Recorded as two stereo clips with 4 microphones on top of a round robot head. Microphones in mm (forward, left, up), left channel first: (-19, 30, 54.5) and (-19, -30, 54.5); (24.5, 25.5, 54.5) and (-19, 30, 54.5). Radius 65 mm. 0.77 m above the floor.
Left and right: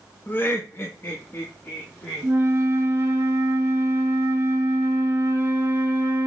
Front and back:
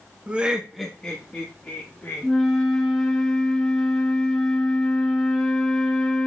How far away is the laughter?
About 0.9 m.